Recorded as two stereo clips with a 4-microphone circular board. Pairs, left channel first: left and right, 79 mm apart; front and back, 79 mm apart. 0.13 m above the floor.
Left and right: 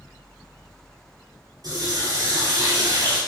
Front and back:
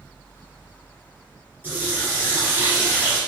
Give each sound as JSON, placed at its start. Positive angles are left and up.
{"t": 1.6, "sound": "a running tap", "azimuth_deg": -115, "distance_m": 1.9}